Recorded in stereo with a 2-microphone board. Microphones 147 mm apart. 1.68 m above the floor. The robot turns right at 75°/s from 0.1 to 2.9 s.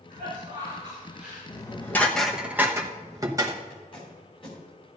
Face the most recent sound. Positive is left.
turn(degrees=35)  # may be behind; listen again after turning